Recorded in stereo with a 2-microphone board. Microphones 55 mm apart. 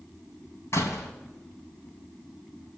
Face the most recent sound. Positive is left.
turn(degrees=60)  # may be behind; listen again after turning